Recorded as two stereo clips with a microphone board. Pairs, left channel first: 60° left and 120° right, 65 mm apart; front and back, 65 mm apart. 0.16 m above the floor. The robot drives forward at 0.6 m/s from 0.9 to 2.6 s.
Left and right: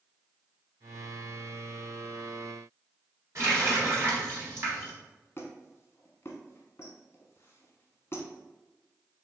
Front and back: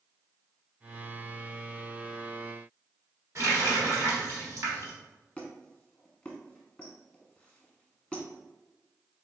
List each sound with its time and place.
3.4 s a running tap: 150° right, 1.7 m
5.4 s a squeak: 65° left, 0.7 m